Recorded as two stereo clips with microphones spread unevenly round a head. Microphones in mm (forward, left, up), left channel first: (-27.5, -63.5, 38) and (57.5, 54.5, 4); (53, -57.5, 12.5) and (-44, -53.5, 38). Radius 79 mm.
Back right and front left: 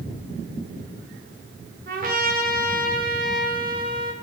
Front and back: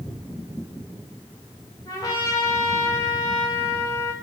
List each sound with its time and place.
1.9 s a trumpet: 70° left, 1.1 m